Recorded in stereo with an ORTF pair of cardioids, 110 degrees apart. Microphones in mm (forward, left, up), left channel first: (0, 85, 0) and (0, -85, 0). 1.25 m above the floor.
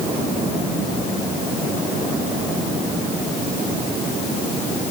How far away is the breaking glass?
No breaking glass in this recording.